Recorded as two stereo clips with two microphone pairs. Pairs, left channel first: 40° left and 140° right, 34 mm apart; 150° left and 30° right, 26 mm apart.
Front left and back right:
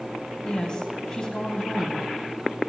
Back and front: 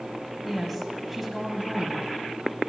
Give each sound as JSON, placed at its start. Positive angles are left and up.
{"t": 0.4, "sound": "a woman speaking", "azimuth_deg": 65, "distance_m": 1.2}